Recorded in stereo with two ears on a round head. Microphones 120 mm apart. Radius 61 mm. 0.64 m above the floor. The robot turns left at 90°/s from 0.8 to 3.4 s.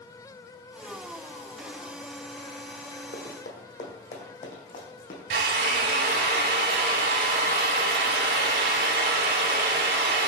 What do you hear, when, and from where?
3.1 s running footsteps: 60° left (ahead or behind), 1.9 m; by 5.2 s 55° left (ahead or behind), 2 m
5.3 s a drill: 85° right, 1.1 m